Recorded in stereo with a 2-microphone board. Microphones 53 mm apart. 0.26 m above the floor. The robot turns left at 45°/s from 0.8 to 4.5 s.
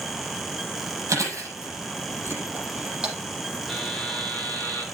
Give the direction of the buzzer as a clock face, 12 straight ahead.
6 o'clock.